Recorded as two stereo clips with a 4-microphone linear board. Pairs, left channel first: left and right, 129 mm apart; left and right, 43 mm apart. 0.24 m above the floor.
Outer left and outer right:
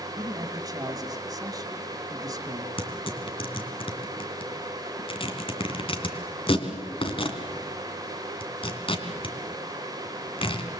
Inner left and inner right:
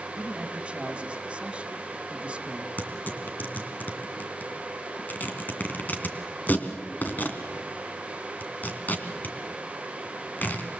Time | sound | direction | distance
0.1 | a man speaking | 30° right (ahead or behind) | 2 m
2.8 | tearing paper | 45° left (ahead or behind) | 2.5 m